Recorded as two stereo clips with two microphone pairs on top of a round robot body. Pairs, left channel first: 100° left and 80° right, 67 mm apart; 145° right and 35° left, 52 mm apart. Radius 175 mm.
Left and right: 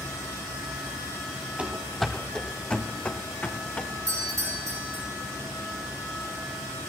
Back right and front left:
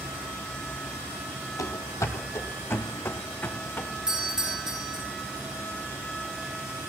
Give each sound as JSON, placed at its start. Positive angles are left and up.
{"t": 1.6, "sound": "running footsteps", "azimuth_deg": -145, "distance_m": 0.7}
{"t": 4.1, "sound": "a doorbell", "azimuth_deg": -45, "distance_m": 5.0}